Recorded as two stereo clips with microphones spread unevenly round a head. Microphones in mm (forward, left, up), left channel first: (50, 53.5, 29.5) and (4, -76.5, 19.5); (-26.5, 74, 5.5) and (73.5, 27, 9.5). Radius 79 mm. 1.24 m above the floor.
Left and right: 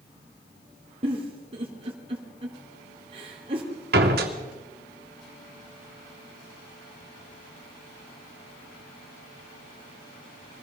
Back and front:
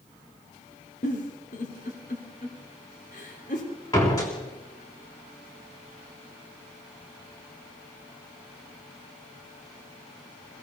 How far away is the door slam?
About 3 m.